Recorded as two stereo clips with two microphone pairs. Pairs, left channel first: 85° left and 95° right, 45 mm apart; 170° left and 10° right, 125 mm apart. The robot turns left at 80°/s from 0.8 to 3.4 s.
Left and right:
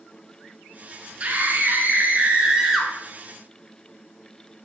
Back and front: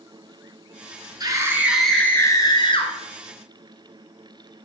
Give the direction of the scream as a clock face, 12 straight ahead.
2 o'clock.